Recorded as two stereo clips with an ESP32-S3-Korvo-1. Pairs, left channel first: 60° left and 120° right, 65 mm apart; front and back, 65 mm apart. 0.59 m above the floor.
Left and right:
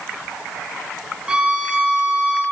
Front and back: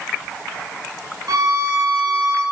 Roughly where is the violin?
Behind.